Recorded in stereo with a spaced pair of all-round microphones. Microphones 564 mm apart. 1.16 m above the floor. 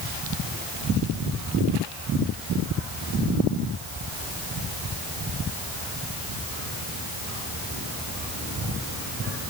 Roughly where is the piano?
No piano in this recording.